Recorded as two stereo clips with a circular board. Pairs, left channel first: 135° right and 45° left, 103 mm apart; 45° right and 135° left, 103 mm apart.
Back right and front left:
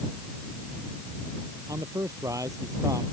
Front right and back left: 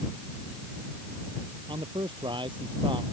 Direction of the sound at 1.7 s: 100° left.